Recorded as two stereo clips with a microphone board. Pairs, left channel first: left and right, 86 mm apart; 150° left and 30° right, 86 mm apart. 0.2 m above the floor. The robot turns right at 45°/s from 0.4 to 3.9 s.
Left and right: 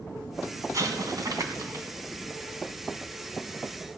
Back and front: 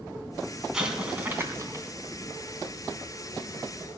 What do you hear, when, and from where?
0.7 s an explosion: 110° right, 2 m; by 1.9 s 60° right, 2 m